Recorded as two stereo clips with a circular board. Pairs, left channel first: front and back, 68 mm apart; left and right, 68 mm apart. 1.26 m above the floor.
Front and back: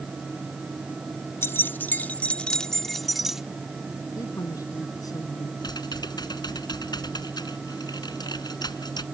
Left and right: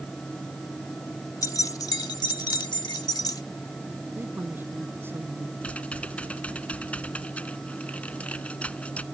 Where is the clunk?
No clunk in this recording.